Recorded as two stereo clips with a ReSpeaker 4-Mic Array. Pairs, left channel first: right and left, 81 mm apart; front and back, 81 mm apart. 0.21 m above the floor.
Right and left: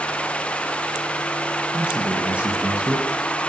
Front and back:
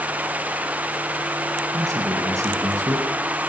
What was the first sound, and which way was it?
A man speaking, 155° left.